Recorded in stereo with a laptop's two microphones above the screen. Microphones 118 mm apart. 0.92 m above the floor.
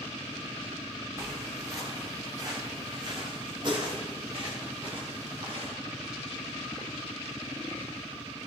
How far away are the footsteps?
About 5 m.